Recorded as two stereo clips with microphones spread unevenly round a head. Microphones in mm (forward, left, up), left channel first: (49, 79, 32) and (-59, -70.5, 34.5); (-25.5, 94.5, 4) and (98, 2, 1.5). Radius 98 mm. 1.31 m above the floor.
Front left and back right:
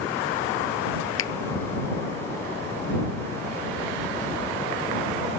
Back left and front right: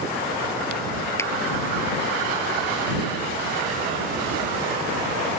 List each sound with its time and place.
1.2 s a finger snap: 70° left